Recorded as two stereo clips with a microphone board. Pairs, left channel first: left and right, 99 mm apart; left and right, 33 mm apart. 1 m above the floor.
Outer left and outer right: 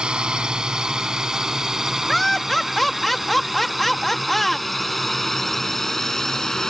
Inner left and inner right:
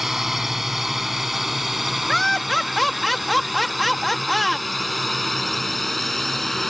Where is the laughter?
Centre (ahead or behind).